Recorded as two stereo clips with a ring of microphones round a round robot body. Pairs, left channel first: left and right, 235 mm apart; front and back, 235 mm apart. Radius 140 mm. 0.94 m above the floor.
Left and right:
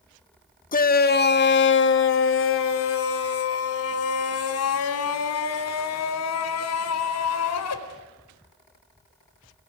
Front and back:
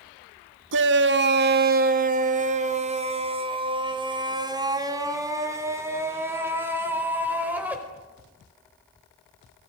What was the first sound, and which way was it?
A shout, 145° left.